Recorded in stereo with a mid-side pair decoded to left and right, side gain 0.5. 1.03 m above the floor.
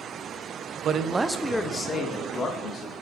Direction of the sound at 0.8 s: 60° right.